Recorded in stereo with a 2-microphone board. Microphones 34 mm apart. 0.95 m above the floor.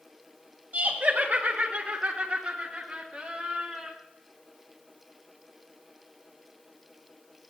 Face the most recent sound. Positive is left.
turn(degrees=10)  # may be behind; listen again after turning